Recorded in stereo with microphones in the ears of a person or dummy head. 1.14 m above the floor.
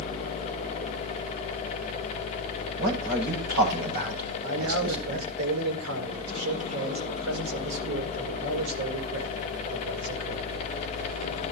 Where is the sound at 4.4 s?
80° right, 4.5 m.